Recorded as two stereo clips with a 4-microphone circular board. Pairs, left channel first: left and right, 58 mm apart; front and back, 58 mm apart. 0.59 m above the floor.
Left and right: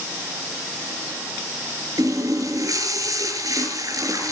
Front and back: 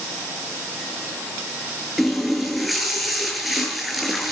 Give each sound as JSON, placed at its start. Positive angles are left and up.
{"t": 2.0, "sound": "a running tap", "azimuth_deg": -95, "distance_m": 6.5}